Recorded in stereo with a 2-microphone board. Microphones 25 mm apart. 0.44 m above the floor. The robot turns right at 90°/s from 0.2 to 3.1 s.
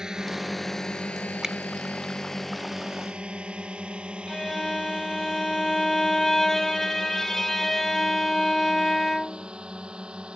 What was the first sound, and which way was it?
A drone, 30° right (ahead or behind).